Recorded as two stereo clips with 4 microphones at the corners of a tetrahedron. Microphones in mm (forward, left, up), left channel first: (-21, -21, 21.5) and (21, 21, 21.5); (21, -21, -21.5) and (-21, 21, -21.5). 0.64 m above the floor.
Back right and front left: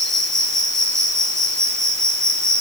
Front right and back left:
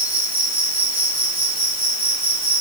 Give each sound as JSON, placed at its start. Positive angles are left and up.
{"t": 0.0, "sound": "an insect", "azimuth_deg": 75, "distance_m": 4.5}